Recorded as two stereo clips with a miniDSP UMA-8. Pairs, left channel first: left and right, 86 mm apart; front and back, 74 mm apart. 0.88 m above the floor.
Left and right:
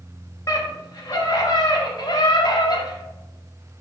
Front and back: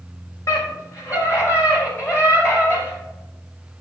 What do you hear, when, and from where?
0.5 s a scream: 45° left, 5 m; by 3.0 s 55° left, 4 m